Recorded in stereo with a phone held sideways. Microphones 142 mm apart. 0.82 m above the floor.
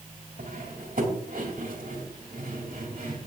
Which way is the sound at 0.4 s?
85° right.